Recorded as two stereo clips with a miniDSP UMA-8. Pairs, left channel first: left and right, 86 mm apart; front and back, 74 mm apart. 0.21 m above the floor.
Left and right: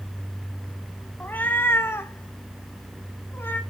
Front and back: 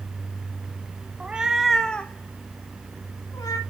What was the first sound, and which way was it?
A cat meowing, 135° left.